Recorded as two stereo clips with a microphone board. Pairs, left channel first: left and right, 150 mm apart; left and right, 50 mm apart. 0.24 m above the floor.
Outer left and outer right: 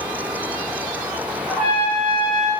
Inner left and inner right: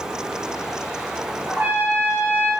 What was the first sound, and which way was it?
A trumpet, 35° right (ahead or behind).